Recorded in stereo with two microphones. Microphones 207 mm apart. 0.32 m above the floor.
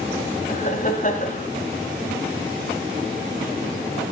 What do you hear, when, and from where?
0.5 s laughter: 35° left (ahead or behind), 1.4 m